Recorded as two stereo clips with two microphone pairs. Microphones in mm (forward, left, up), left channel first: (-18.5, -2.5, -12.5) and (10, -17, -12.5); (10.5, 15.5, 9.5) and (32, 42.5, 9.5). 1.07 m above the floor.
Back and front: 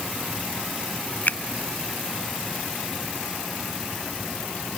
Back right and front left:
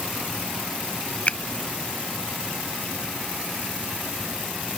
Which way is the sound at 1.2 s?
175° right.